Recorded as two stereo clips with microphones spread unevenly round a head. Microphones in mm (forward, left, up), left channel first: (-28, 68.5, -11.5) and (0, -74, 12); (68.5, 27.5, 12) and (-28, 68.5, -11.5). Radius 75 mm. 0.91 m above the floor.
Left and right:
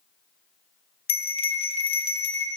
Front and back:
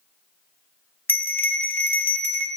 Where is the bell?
45° left, 0.9 m.